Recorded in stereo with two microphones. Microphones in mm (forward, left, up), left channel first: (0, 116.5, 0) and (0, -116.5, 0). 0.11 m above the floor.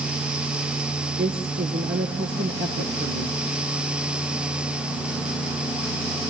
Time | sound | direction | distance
1.2 | a woman speaking | 60° right (ahead or behind) | 2 m